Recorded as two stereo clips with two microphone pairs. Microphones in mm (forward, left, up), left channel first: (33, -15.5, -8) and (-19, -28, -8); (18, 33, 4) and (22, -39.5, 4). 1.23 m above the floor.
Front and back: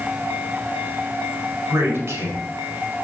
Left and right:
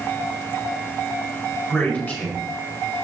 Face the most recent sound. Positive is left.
turn(degrees=160)